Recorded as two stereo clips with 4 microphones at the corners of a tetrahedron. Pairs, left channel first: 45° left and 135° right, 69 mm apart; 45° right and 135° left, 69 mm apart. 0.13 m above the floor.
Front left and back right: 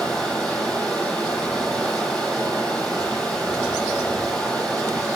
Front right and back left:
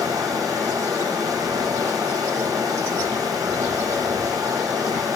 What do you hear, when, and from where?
0.0 s running water: 120° left, 1.8 m